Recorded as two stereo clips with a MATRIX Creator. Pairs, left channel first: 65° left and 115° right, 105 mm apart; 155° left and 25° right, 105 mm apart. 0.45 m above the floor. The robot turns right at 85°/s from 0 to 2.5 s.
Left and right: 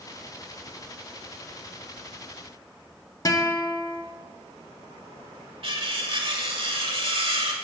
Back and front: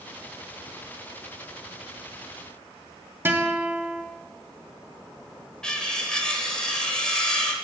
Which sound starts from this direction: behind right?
Cutlery clinking, at 5.6 s.